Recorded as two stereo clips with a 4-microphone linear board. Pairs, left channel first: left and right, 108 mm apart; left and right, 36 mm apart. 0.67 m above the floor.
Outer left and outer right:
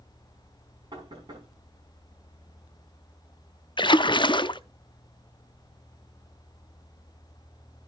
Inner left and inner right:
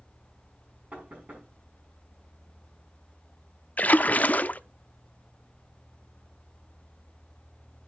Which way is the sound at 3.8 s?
45° left (ahead or behind).